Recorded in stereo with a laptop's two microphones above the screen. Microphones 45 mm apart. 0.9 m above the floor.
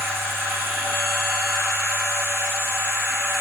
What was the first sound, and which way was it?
A machine running, 70° right (ahead or behind).